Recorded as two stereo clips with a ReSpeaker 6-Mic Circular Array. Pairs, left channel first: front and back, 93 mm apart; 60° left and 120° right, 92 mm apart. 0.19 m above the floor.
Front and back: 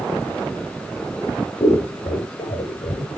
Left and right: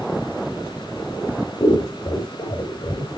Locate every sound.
1.6 s scissors: 20° left, 4.5 m